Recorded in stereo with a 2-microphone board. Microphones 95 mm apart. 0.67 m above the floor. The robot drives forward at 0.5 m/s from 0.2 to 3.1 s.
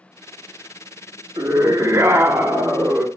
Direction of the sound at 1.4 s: 30° right (ahead or behind).